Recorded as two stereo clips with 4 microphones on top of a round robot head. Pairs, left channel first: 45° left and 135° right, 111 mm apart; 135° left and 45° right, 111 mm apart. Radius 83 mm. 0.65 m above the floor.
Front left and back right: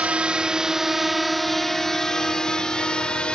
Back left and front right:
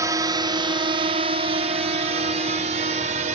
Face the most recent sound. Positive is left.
turn(degrees=-40)